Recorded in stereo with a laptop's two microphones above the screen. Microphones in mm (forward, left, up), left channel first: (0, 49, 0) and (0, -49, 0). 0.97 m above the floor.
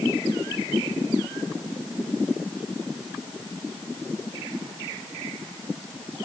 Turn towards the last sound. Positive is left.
No sound to turn to.